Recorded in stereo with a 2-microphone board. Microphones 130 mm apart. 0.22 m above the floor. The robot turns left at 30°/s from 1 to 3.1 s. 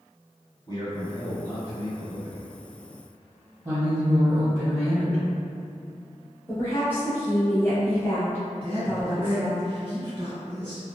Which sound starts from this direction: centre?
A woman speaking, at 6.5 s.